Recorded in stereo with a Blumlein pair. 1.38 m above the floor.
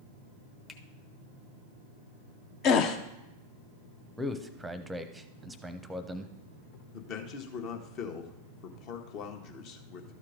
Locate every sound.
0.7 s a finger snap: 15° left, 1.0 m
2.6 s a gasp: 35° left, 0.8 m
4.2 s a man speaking: 5° right, 0.8 m
6.9 s a man speaking: 40° left, 1.2 m